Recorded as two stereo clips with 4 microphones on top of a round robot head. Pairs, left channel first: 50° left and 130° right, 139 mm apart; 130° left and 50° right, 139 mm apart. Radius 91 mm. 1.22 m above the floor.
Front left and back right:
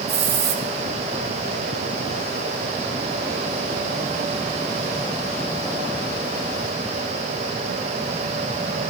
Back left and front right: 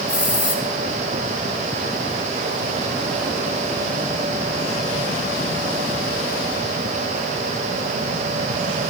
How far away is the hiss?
About 2.5 m.